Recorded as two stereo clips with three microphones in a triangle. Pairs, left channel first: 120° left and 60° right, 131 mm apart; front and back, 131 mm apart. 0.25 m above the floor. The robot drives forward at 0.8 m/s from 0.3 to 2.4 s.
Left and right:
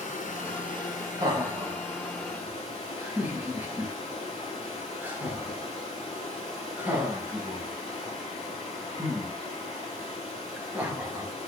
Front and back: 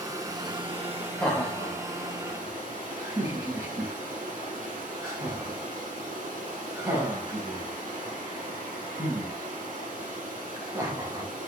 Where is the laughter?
65° right, 1.4 m; by 11.3 s 130° right, 1.5 m.